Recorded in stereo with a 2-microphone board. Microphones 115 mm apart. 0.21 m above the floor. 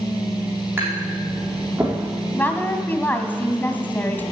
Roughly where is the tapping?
Centre.